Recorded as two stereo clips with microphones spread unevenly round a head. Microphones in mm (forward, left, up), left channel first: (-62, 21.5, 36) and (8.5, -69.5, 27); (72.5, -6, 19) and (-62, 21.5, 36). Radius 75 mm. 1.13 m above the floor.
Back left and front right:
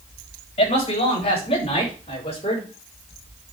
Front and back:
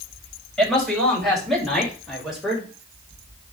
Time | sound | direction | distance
0.6 | a man speaking | 80° left | 6.5 m